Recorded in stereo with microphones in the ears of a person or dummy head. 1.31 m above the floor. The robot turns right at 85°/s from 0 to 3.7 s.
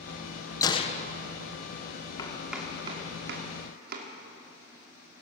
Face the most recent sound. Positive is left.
turn(degrees=-55)  # may be behind; listen again after turning